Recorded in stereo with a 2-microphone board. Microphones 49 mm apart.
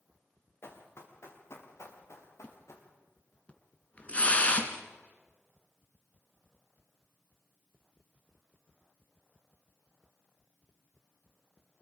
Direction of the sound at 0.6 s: 55° left (ahead or behind).